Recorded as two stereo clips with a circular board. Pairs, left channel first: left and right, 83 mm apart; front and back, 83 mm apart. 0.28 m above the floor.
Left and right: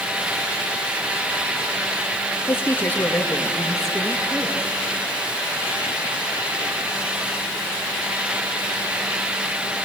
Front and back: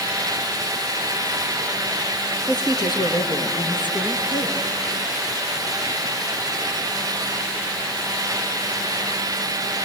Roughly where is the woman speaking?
Ahead left.